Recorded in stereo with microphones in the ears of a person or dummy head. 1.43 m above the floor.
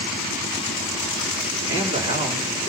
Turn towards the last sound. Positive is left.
turn(degrees=-25)  # may be behind; listen again after turning